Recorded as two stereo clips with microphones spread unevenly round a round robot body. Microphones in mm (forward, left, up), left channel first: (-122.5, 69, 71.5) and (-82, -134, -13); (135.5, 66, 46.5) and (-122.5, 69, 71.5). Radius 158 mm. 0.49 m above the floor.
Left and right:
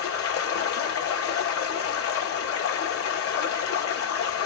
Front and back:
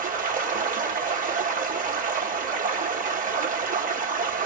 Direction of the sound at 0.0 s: 120° left.